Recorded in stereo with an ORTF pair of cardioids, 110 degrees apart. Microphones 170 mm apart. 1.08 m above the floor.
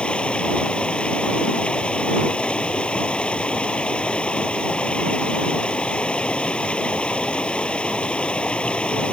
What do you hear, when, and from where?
0.0 s running water: 5° left